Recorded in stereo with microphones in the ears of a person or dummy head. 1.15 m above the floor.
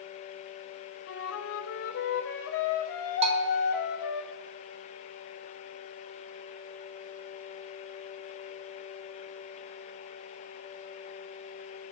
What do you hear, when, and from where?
1.1 s a flute: 70° left (ahead or behind), 0.7 m
3.2 s a bell: 30° right (ahead or behind), 0.6 m